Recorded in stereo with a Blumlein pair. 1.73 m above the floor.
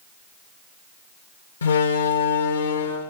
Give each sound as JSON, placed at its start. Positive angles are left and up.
{"t": 1.6, "sound": "a door slam", "azimuth_deg": 70, "distance_m": 2.0}